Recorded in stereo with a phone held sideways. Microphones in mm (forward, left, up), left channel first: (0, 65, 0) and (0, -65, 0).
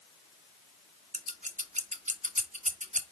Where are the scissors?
75° right (ahead or behind), 0.7 m.